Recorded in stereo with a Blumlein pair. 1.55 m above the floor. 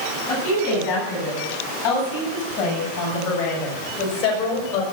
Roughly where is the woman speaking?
Ahead left.